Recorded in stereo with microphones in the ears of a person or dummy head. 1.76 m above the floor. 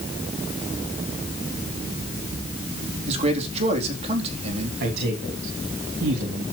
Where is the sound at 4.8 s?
60° right (ahead or behind), 3.5 m.